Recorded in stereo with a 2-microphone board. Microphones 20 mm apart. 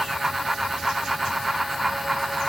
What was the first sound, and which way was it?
Only background noise.